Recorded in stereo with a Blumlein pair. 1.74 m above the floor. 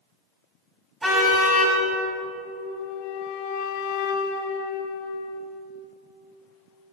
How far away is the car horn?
About 6.5 m.